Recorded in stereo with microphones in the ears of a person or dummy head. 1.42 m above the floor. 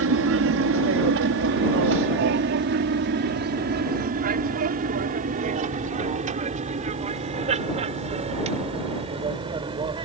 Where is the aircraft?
65° right (ahead or behind); by 10.1 s 25° right (ahead or behind).